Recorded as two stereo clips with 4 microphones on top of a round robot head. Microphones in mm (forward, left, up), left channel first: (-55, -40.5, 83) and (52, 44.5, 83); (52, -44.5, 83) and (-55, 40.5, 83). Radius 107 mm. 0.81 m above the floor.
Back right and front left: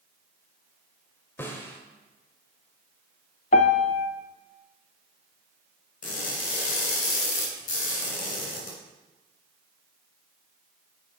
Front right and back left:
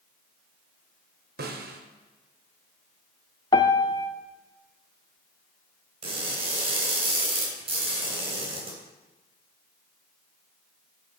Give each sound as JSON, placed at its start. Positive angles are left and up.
{"t": 1.4, "sound": "a snare drum", "azimuth_deg": 140, "distance_m": 1.2}
{"t": 3.5, "sound": "a piano", "azimuth_deg": -100, "distance_m": 0.6}
{"t": 6.0, "sound": "crushing", "azimuth_deg": -170, "distance_m": 3.0}